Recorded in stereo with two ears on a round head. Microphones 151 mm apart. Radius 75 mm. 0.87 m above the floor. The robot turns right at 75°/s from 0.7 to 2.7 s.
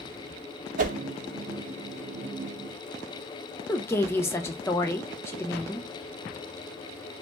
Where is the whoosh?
50° right (ahead or behind), 0.6 m.